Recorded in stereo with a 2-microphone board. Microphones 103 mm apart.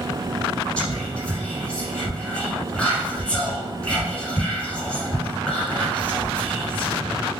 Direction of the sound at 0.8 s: 10° left (ahead or behind).